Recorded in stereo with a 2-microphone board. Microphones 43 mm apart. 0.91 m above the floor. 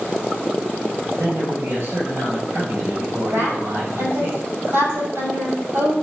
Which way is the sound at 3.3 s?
70° right (ahead or behind).